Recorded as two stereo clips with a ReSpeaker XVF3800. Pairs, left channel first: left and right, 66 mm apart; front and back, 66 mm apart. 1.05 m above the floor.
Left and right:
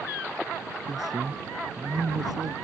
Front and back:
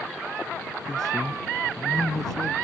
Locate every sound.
0.8 s a man speaking: 85° right